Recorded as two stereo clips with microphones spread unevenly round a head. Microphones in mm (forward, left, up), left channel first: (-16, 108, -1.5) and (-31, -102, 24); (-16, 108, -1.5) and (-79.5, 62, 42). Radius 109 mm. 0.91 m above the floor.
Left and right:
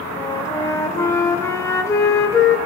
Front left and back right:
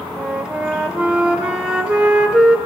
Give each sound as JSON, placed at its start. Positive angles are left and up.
{"t": 0.2, "sound": "a flute", "azimuth_deg": 165, "distance_m": 0.8}